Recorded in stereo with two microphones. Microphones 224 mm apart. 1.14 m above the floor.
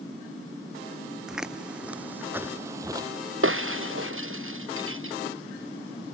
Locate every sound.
1.3 s footsteps: centre (ahead or behind); by 3.1 s 15° right (ahead or behind)
3.4 s breaking glass: 65° right (ahead or behind)